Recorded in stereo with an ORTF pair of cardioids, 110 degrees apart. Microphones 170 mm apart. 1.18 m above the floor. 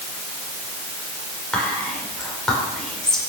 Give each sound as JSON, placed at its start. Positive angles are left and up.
{"t": 1.5, "sound": "whispering", "azimuth_deg": 5, "distance_m": 5.0}